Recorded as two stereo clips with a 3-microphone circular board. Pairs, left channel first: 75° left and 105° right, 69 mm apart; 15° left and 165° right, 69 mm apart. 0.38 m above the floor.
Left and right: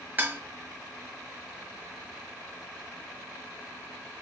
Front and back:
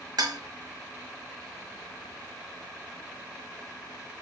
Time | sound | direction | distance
0.2 | dishes clattering | 165° right | 1.4 m